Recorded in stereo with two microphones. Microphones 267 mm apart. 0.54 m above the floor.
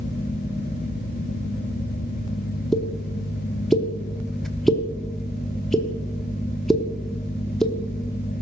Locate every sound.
2.7 s a pop: centre (ahead or behind), 1.0 m